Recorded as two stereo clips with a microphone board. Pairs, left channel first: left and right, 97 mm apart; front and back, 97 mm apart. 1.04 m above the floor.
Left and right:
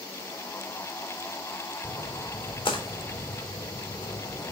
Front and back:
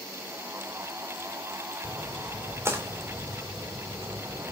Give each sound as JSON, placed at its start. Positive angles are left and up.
{"t": 1.8, "sound": "a splash", "azimuth_deg": 115, "distance_m": 3.5}